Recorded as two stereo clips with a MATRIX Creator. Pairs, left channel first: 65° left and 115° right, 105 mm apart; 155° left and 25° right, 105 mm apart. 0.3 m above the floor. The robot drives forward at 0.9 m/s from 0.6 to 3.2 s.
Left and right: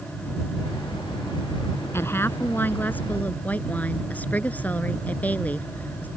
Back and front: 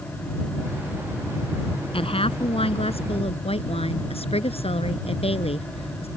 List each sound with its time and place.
1.9 s a woman speaking: 130° left; by 6.1 s 140° left